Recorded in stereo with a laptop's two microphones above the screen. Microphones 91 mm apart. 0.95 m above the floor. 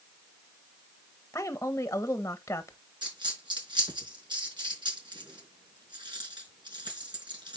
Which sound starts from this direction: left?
A woman speaking, at 1.3 s.